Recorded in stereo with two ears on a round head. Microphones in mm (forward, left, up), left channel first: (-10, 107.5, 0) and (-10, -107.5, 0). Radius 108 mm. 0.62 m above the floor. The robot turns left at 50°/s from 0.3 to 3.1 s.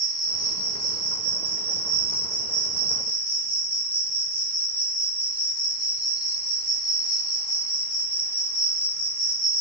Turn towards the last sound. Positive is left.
turn(degrees=-155)